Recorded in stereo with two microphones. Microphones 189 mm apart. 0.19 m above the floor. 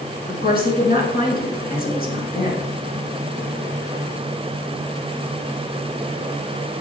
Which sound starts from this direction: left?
A woman speaking, at 0.3 s.